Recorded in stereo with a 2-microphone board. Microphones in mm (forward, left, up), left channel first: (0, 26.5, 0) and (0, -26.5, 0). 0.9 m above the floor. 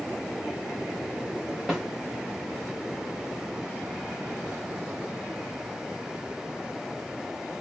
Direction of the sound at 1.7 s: 5° right (ahead or behind).